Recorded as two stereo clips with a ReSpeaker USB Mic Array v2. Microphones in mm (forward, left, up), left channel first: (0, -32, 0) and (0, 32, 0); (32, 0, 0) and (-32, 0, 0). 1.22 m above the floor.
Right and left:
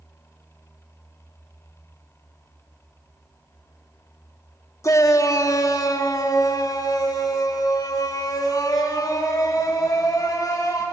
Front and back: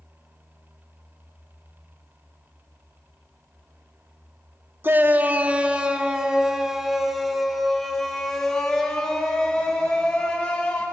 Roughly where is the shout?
Behind right.